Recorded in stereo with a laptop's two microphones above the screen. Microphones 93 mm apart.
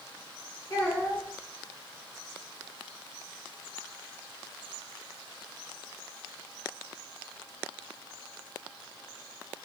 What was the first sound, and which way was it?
A child speaking, 30° left (ahead or behind).